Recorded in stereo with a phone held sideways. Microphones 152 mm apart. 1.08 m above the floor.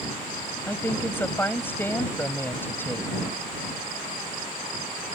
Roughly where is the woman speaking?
Centre.